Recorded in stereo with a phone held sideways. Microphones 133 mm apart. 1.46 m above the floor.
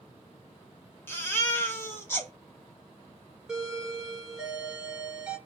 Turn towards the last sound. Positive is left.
turn(degrees=-5)  # may be behind; listen again after turning